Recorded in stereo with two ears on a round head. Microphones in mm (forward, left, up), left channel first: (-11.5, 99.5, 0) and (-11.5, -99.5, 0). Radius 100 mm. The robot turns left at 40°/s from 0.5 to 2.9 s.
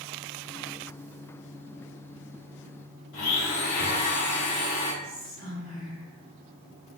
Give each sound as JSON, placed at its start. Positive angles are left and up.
{"t": 3.1, "sound": "a blender", "side_deg": 30, "distance_m": 1.2}
{"t": 5.0, "sound": "whispering", "side_deg": -50, "distance_m": 1.7}